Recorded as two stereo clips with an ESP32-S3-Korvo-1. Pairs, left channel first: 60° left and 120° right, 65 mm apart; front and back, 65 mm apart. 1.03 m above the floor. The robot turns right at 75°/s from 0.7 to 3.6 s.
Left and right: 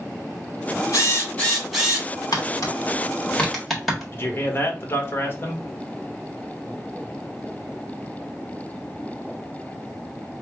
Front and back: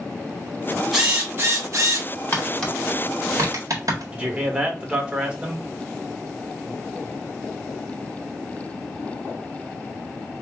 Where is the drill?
95° left, 1.9 m; by 2.1 s straight behind, 1.9 m.